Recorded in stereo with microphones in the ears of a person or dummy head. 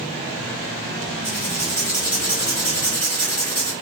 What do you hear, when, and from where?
1.2 s writing: 5° left (ahead or behind), 1.8 m